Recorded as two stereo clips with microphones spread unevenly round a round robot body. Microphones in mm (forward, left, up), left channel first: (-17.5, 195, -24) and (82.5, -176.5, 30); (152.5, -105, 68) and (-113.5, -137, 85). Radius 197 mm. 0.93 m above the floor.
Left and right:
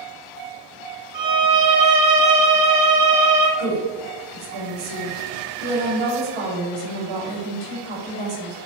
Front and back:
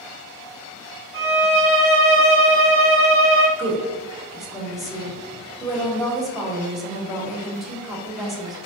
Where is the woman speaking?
80° right, 1.4 m.